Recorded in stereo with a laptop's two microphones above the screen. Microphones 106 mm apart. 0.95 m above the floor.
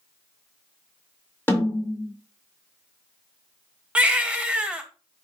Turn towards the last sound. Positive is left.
turn(degrees=-10)  # may be behind; listen again after turning